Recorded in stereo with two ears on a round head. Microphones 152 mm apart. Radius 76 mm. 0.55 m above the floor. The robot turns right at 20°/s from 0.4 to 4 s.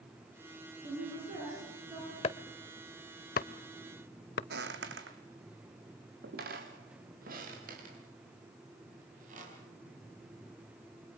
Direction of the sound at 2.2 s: 35° left (ahead or behind).